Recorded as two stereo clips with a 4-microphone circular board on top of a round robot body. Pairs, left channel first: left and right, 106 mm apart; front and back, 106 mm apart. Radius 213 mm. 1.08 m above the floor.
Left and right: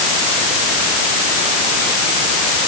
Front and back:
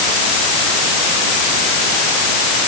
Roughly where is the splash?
I don't hear a splash.